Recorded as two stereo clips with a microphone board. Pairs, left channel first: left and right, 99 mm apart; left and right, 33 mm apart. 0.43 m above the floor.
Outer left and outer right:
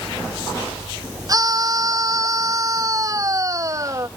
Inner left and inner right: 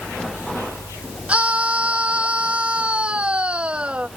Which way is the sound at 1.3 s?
40° right (ahead or behind).